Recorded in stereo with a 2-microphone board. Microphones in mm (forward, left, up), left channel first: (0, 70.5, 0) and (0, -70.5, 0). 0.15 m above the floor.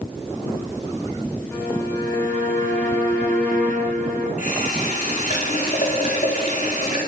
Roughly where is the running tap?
Left.